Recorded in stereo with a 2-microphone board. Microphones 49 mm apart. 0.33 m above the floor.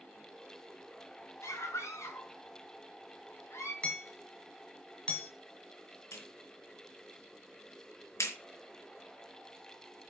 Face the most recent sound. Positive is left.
turn(degrees=75)  # may be behind; listen again after turning